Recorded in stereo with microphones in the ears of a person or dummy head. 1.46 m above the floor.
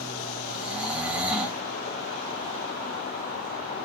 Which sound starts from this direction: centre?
Snoring, at 0.5 s.